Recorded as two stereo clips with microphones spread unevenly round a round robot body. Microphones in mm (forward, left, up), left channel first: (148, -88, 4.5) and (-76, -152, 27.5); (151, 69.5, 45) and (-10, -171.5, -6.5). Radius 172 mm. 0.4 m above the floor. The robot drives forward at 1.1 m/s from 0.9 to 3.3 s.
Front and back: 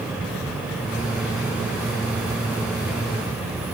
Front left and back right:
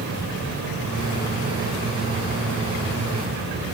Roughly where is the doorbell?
I don't hear a doorbell.